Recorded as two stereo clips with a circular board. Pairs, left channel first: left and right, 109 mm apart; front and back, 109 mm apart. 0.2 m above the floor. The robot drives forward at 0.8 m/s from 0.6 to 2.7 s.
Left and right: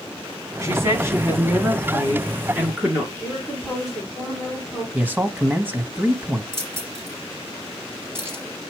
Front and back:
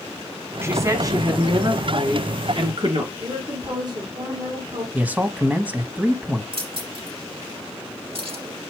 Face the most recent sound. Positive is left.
turn(degrees=-155)